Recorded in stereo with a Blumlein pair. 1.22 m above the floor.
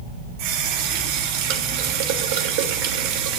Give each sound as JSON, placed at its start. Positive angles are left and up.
{"t": 0.4, "sound": "a running tap", "azimuth_deg": -45, "distance_m": 3.0}